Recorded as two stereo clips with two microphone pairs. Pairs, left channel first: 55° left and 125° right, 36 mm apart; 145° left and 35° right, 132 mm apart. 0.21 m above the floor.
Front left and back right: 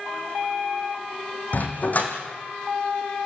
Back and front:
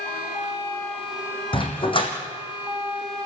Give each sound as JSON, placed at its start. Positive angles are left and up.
{"t": 1.5, "sound": "a dog barking", "azimuth_deg": 100, "distance_m": 3.5}